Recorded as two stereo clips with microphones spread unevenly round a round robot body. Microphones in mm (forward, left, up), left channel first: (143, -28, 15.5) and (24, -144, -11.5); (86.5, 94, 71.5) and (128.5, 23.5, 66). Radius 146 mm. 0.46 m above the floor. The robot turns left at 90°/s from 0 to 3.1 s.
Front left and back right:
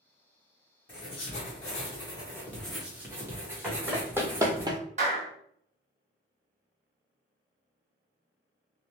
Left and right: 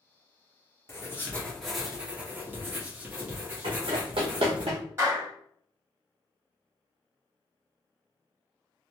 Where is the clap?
110° right, 1.5 m.